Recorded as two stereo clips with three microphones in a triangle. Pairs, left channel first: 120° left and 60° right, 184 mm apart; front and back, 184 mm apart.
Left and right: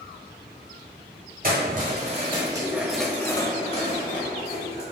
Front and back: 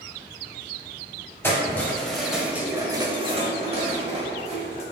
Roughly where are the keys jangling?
Right.